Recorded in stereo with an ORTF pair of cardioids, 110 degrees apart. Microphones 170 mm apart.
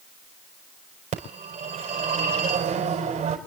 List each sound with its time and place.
1.1 s a phone ringing: 45° right, 5.5 m